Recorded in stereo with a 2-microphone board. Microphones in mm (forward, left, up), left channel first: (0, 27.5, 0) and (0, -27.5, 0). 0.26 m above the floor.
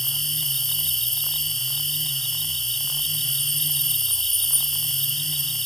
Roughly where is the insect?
Centre.